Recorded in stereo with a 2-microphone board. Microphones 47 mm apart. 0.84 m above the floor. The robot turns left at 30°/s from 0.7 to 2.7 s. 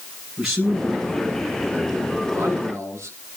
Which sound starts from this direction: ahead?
A man speaking, at 0.4 s.